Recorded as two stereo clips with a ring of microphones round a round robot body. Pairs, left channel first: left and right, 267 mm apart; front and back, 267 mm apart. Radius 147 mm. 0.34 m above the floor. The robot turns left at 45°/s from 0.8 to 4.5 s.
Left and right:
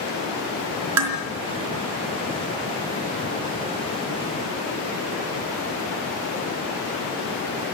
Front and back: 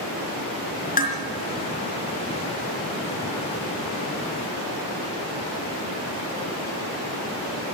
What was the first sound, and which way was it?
Dishes clattering, 65° right.